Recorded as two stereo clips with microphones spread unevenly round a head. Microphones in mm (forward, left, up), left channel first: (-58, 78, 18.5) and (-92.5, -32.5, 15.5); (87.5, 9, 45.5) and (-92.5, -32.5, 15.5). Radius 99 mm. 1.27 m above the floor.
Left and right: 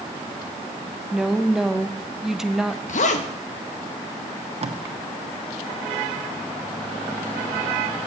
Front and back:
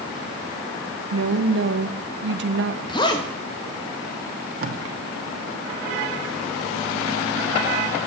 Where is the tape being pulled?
135° right, 1.2 m.